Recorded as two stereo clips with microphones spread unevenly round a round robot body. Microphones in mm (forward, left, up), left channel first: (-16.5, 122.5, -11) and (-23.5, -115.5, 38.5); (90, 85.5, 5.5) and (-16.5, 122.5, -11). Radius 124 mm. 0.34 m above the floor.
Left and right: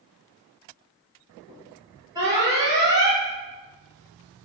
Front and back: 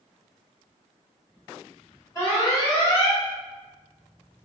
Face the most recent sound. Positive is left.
turn(degrees=-10)